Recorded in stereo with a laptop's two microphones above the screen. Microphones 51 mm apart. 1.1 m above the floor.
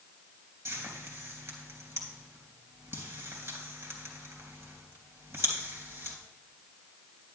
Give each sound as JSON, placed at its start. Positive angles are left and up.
{"t": 0.7, "sound": "frying", "side_deg": -50, "distance_m": 3.0}